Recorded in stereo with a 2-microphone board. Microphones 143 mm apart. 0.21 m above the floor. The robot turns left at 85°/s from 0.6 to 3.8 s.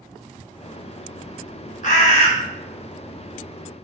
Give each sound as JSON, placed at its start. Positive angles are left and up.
{"t": 1.8, "sound": "a bird", "azimuth_deg": 90, "distance_m": 0.6}